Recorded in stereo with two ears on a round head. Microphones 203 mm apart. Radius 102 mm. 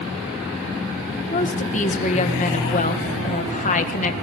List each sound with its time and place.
1.3 s a woman speaking: 35° left (ahead or behind), 1.6 m